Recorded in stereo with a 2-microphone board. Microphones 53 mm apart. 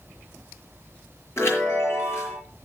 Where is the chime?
50° left (ahead or behind), 5.5 m.